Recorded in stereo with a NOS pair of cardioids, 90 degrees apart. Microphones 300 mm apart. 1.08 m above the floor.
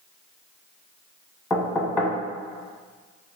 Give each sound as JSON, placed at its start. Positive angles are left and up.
{"t": 1.5, "sound": "knocking", "azimuth_deg": 5, "distance_m": 1.0}